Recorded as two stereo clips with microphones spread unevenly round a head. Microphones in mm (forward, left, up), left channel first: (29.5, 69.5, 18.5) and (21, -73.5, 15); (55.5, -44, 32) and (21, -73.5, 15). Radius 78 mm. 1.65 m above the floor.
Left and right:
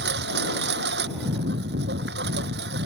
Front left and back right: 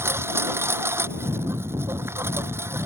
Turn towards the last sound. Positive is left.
turn(degrees=-115)